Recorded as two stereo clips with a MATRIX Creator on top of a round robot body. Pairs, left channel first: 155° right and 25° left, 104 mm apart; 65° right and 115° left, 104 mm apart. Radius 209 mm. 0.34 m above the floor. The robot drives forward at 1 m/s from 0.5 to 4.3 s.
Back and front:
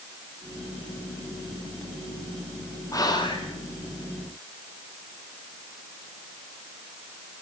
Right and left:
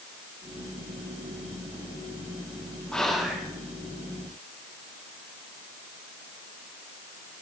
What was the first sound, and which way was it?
Whispering, 145° right.